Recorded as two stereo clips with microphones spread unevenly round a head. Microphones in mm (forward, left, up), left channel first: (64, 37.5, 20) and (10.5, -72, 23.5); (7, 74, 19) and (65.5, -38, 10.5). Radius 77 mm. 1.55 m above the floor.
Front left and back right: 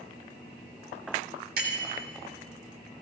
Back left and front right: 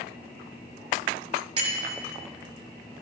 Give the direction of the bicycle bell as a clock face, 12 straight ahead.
4 o'clock.